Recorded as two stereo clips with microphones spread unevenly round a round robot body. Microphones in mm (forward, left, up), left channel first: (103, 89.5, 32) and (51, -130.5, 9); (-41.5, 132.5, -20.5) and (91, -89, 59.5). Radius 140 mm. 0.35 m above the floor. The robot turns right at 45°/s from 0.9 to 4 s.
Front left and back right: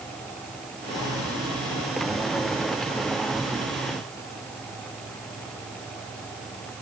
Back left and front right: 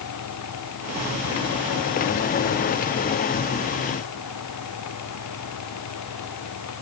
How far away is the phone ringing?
No phone ringing in this recording.